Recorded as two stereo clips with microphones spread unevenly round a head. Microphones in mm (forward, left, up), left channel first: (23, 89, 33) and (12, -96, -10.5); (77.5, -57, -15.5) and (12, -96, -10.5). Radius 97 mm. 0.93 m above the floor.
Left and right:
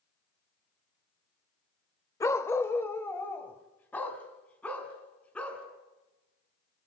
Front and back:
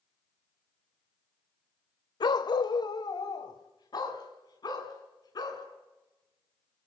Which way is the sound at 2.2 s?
20° left.